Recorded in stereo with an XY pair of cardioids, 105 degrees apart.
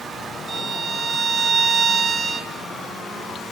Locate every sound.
0.5 s a violin: 35° right, 1.8 m